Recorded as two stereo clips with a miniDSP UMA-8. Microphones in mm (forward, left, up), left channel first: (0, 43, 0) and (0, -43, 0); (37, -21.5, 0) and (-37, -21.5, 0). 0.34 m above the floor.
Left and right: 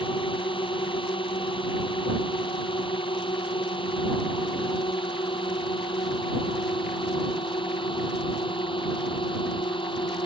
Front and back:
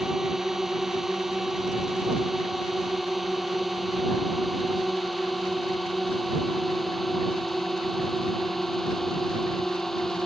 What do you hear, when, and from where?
0.0 s a drone: 95° left; by 10.3 s 85° left